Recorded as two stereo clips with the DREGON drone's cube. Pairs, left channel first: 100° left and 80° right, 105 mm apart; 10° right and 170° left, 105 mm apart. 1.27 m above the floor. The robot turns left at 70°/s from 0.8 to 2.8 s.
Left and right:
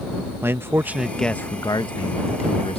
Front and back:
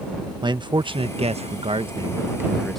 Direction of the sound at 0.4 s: 145° right.